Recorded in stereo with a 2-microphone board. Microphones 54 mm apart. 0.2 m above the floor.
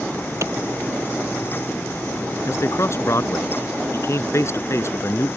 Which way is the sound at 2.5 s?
60° left (ahead or behind).